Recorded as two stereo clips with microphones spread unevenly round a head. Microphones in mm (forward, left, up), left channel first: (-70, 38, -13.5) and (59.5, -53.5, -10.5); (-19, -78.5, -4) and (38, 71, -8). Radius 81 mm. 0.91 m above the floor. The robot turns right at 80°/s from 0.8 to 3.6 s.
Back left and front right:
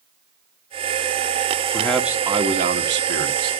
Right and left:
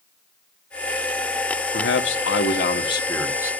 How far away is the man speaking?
About 1.2 m.